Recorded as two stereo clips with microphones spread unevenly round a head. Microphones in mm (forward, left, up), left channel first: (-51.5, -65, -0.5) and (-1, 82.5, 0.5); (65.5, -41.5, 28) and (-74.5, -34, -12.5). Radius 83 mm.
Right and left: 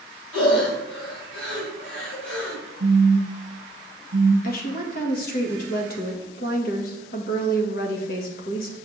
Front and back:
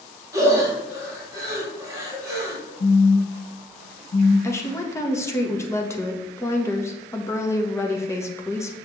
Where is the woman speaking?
80° right, 1.6 m.